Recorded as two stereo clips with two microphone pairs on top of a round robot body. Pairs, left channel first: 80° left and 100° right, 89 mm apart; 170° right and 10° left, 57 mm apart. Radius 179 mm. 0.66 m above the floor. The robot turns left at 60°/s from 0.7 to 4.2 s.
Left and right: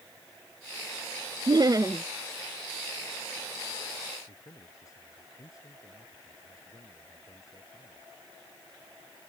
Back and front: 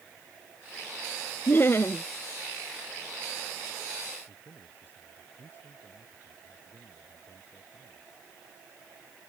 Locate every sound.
1.5 s laughter: 120° right; by 2.0 s 155° right
4.3 s a man speaking: 130° left